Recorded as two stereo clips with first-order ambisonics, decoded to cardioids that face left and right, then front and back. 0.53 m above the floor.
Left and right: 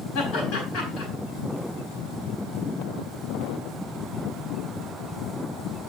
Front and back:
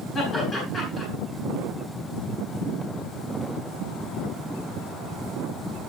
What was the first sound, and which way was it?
Laughter, 65° left.